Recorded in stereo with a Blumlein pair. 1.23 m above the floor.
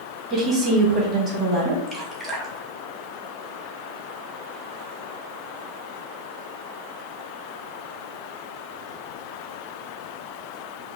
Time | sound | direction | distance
0.3 | a woman speaking | 25° right | 2 m
1.9 | dripping | 15° right | 1.1 m